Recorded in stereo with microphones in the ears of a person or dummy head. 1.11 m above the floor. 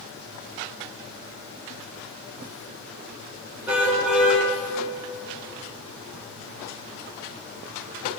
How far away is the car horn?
About 6 m.